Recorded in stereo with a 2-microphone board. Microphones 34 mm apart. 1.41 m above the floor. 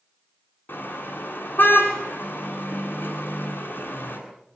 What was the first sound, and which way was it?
A car horn, 75° left (ahead or behind).